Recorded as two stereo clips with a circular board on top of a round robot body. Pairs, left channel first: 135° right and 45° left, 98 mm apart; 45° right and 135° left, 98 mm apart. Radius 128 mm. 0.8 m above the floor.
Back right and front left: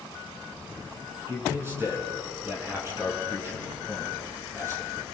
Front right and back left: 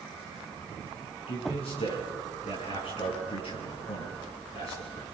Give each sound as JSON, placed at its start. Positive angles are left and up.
{"t": 1.3, "sound": "a man speaking", "azimuth_deg": -20, "distance_m": 8.5}